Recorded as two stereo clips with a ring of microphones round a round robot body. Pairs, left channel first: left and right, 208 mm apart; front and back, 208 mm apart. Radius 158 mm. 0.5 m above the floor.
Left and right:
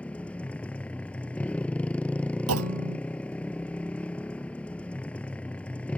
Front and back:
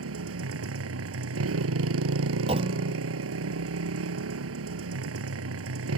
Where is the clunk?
110° right.